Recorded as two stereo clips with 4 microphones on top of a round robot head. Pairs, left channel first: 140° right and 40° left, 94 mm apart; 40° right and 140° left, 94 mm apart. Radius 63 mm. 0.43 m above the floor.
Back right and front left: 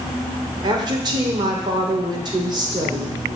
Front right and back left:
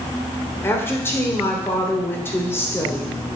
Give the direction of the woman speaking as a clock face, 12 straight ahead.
11 o'clock.